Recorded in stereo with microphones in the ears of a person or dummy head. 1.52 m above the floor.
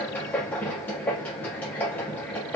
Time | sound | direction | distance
0.0 | a machine running | 5° left (ahead or behind) | 1.1 m